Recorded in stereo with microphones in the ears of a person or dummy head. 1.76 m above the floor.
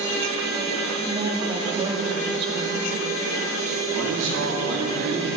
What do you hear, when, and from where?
1.1 s a woman speaking: 30° right (ahead or behind), 3 m
3.9 s a man speaking: 75° right (ahead or behind), 3.5 m